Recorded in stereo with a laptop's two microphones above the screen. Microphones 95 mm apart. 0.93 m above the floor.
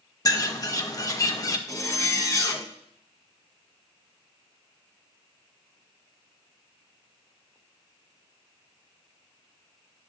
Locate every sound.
0.2 s a bird: 35° left (ahead or behind), 0.6 m
1.7 s a zipper: 35° left (ahead or behind), 0.9 m